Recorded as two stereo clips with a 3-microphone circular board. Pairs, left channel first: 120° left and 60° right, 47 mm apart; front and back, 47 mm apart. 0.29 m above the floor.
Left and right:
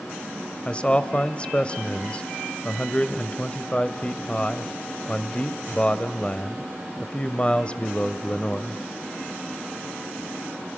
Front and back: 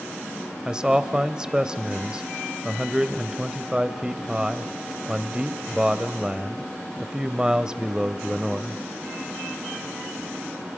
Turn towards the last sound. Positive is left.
turn(degrees=130)